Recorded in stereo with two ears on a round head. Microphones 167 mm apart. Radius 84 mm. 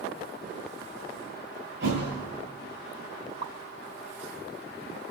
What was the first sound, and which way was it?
A thud, 70° right (ahead or behind).